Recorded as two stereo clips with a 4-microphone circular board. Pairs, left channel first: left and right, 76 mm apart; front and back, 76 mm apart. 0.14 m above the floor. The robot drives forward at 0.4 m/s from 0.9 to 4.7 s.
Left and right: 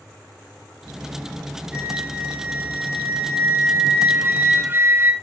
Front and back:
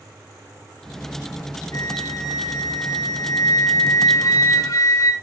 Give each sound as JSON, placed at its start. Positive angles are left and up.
{"t": 1.7, "sound": "a flute", "azimuth_deg": -20, "distance_m": 3.5}